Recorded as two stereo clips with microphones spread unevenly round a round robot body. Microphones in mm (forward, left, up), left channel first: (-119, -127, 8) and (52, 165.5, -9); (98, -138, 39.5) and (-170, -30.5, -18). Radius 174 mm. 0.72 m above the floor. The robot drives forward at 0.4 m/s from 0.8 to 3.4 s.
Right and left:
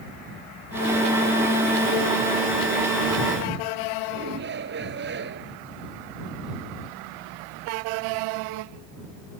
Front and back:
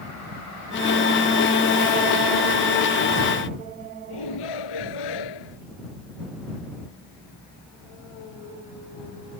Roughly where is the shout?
Ahead.